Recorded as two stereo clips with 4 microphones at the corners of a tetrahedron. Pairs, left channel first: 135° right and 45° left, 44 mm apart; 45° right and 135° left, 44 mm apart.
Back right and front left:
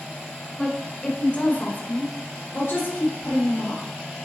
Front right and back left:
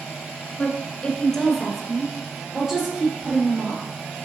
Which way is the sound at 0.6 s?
60° right.